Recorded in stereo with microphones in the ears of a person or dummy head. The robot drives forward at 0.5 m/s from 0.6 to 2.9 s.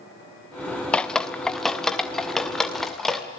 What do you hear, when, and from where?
0.9 s dripping: 5° left (ahead or behind), 0.9 m